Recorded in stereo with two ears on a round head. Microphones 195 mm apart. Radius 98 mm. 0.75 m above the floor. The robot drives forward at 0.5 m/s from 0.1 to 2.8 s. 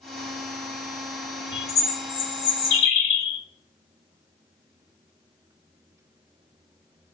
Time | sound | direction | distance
1.5 | a bird | 55° left (ahead or behind) | 0.8 m